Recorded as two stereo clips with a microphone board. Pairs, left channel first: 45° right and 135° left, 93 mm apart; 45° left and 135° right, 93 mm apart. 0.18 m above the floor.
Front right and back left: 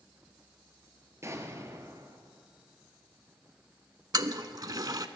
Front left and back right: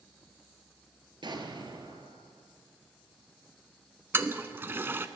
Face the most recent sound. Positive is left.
turn(degrees=165)